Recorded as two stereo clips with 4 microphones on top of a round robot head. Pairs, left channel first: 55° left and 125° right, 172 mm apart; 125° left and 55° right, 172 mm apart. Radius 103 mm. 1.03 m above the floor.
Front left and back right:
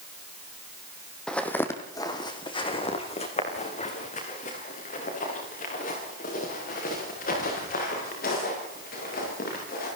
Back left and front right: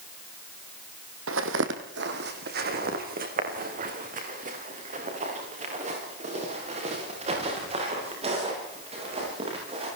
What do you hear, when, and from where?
1.3 s footsteps: 35° right, 2.5 m; by 9.8 s 10° left, 14.5 m